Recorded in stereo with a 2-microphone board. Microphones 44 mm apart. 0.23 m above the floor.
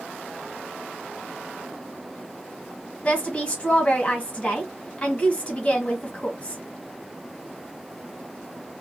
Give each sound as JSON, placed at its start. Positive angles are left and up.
{"t": 3.0, "sound": "a woman speaking", "side_deg": 30, "distance_m": 1.4}